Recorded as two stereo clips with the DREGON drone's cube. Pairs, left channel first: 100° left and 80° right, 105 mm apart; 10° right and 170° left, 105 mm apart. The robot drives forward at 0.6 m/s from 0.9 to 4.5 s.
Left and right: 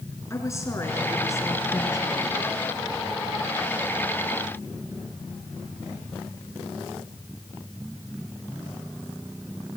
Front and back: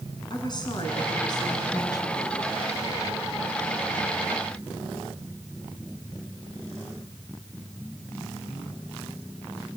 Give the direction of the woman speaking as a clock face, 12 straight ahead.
11 o'clock.